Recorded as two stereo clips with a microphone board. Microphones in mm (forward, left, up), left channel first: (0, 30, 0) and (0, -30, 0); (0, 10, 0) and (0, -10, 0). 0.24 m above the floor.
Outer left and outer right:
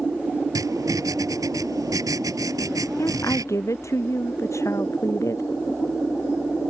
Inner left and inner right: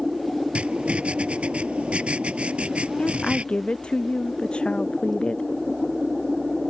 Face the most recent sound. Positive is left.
turn(degrees=55)  # may be behind; listen again after turning